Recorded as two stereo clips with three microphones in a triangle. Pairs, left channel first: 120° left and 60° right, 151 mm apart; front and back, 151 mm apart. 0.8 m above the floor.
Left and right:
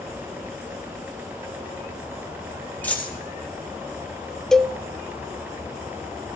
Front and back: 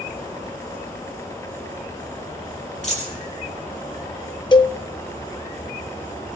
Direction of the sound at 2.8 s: 40° left.